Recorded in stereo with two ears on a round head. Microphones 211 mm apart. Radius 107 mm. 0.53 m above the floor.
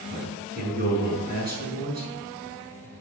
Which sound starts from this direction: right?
A man speaking, at 0.1 s.